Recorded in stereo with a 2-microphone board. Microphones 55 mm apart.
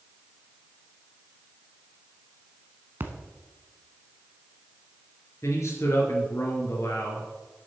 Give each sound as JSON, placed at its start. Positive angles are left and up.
{"t": 3.0, "sound": "a splash", "side_deg": -40, "distance_m": 1.1}
{"t": 5.4, "sound": "a man speaking", "side_deg": 65, "distance_m": 3.0}